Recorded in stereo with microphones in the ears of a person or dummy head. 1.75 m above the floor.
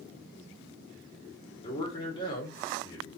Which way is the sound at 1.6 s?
25° left (ahead or behind).